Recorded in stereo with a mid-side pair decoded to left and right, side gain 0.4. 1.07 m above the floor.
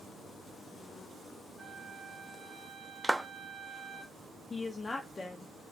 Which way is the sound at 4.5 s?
35° left.